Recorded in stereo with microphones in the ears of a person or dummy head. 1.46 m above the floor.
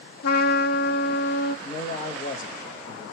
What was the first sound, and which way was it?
A trumpet, 55° left (ahead or behind).